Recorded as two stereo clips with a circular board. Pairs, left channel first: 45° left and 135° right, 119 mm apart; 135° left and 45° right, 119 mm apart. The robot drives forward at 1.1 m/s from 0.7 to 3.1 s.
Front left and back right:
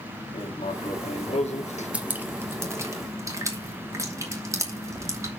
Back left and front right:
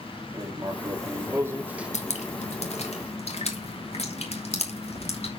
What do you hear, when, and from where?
0.3 s writing: 15° left, 2 m; by 1.9 s 35° left, 1.0 m
1.9 s dripping: 145° left, 1.5 m; by 5.3 s 160° left, 2.5 m